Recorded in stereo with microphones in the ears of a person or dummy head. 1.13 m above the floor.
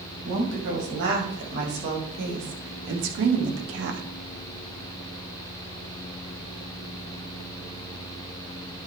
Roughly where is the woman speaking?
Right.